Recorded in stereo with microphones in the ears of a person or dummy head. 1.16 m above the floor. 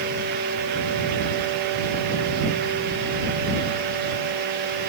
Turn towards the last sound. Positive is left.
No sound to turn to.